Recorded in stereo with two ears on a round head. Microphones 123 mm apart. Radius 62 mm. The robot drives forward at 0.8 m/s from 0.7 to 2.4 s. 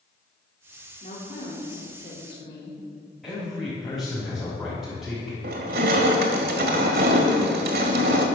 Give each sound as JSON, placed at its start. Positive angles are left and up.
{"t": 1.0, "sound": "a woman speaking", "side_deg": 55, "distance_m": 2.0}
{"t": 3.2, "sound": "a man speaking", "side_deg": 5, "distance_m": 5.0}
{"t": 5.4, "sound": "crushing", "side_deg": -80, "distance_m": 1.9}